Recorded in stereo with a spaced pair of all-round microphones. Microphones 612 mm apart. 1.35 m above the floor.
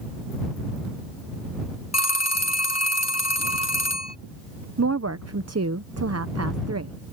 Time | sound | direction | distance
1.9 | a phone ringing | 25° left (ahead or behind) | ?
4.8 | a woman speaking | 25° right (ahead or behind) | ?